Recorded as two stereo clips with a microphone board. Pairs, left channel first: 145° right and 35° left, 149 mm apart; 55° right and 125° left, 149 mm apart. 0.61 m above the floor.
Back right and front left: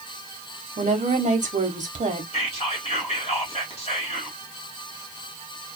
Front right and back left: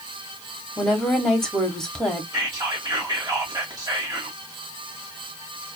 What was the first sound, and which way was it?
A woman speaking, 30° left.